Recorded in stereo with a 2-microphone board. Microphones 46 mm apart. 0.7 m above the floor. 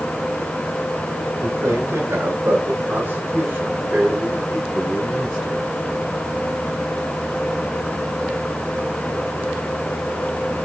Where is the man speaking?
75° right (ahead or behind), 2.5 m; by 5.7 s 5° left (ahead or behind), 3 m.